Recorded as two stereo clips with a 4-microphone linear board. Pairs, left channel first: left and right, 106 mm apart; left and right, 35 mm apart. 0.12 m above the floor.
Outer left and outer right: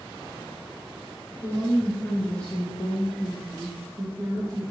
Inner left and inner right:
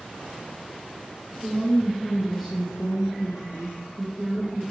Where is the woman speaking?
35° left (ahead or behind), 1.6 m; by 4.6 s 35° right (ahead or behind), 1.7 m.